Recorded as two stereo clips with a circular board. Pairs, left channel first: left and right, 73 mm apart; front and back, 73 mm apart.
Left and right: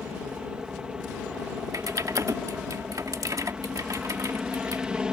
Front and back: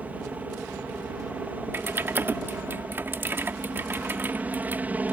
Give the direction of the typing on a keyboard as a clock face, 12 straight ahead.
4 o'clock.